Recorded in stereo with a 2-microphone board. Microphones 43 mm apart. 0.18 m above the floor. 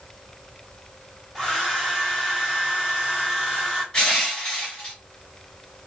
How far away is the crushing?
About 2 m.